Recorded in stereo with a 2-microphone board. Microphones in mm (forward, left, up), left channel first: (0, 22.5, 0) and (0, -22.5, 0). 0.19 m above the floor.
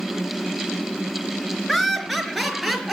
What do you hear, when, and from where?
1.7 s laughter: 5° left (ahead or behind), 3 m; by 2.9 s centre (ahead or behind), 4 m